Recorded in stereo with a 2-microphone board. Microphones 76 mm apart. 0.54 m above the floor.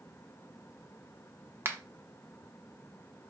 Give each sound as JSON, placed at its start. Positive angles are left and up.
{"t": 1.6, "sound": "a finger snap", "side_deg": -35, "distance_m": 0.5}